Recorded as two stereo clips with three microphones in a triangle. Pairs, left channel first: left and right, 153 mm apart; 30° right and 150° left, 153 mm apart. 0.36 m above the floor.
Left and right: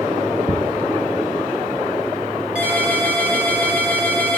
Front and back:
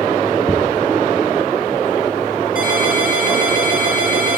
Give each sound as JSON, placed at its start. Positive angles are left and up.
{"t": 0.5, "sound": "ticking", "azimuth_deg": -85, "distance_m": 3.0}
{"t": 2.5, "sound": "a ringtone", "azimuth_deg": -10, "distance_m": 6.0}